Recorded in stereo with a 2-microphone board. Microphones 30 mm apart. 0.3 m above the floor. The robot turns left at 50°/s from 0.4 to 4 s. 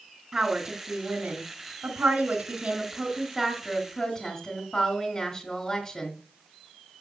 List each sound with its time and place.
0.3 s a woman speaking: 30° right, 2.5 m; by 6.2 s 150° left, 2.5 m